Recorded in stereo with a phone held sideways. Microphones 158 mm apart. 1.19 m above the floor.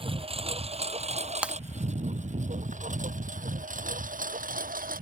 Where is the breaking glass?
10° right (ahead or behind).